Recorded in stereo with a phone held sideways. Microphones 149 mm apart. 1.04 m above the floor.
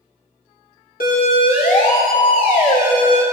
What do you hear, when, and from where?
1.0 s a siren: 75° left (ahead or behind), 4 m; by 3.2 s 80° left, 5 m